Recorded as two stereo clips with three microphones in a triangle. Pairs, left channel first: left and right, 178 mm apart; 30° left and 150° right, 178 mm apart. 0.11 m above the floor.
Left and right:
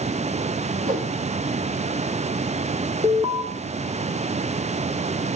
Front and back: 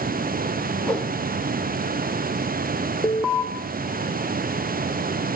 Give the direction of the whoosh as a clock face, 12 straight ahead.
2 o'clock.